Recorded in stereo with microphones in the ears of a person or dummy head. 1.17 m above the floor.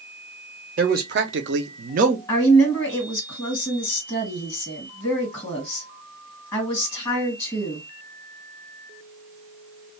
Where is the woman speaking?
10° left (ahead or behind), 1.7 m.